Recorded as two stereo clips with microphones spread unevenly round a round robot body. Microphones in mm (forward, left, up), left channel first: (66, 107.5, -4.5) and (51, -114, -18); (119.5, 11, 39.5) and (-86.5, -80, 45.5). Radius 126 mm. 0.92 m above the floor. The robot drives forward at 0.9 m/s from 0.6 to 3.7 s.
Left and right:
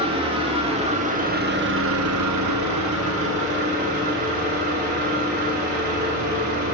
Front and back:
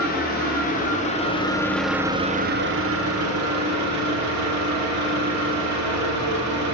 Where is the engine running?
30° right, 1.7 m; by 6.8 s 150° right, 1.5 m.